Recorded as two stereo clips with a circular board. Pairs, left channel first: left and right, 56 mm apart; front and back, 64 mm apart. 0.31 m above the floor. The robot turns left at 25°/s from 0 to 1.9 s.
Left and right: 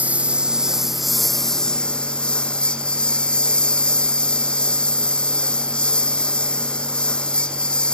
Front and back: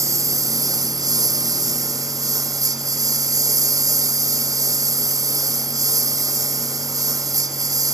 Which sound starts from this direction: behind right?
A lawn mower, at 0.0 s.